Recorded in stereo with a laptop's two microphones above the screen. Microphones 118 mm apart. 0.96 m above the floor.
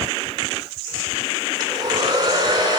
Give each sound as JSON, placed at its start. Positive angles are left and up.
{"t": 1.6, "sound": "a hair dryer", "side_deg": -35, "distance_m": 2.5}